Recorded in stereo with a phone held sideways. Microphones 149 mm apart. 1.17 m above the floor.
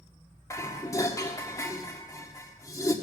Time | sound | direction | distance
0.5 | dishes clattering | 20° left (ahead or behind) | 1.8 m